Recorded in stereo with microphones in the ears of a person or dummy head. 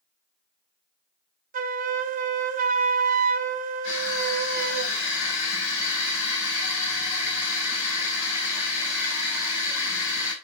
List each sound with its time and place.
1.5 s a flute: 40° right (ahead or behind), 0.8 m
3.8 s crushing: 90° left, 6 m